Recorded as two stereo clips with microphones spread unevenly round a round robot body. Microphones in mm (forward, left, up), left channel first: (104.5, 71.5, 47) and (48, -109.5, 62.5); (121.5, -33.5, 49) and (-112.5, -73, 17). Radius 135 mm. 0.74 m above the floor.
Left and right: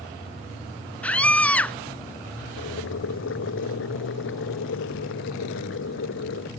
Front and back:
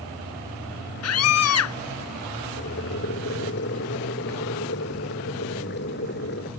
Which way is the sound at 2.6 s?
65° left.